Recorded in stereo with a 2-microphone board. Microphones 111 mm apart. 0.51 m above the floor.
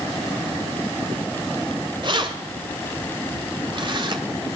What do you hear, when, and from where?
2.0 s keys jangling: 45° right (ahead or behind), 1.7 m